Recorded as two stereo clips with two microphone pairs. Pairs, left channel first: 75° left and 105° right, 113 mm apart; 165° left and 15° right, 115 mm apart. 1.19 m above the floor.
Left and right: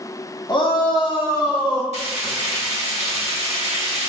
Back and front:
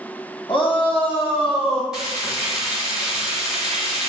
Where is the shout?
125° left, 1.0 m; by 1.8 s 130° left, 1.8 m.